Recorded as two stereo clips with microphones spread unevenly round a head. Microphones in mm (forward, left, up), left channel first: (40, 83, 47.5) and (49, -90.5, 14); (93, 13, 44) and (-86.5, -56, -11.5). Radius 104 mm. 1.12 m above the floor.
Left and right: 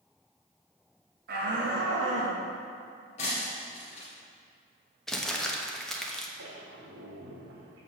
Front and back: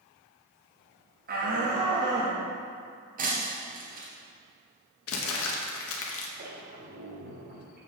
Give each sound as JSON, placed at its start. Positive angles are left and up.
{"t": 1.3, "sound": "a shout", "azimuth_deg": -120, "distance_m": 1.7}
{"t": 3.2, "sound": "breaking glass", "azimuth_deg": 145, "distance_m": 2.0}
{"t": 5.1, "sound": "crumpling", "azimuth_deg": 5, "distance_m": 1.2}
{"t": 6.4, "sound": "a squeak", "azimuth_deg": -115, "distance_m": 2.0}